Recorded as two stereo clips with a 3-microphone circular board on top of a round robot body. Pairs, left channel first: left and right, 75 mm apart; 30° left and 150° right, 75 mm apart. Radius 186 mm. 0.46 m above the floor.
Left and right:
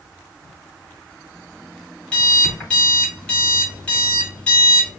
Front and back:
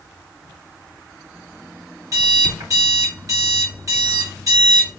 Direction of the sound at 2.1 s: 165° left.